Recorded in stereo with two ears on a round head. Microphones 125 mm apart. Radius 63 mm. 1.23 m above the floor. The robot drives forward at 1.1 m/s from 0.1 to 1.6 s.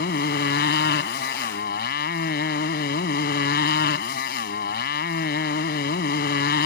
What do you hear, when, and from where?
0.0 s a motorcycle: 75° left (ahead or behind); by 6.7 s 80° left